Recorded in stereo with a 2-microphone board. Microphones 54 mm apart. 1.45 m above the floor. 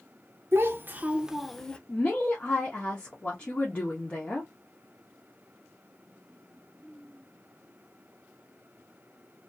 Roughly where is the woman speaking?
Left.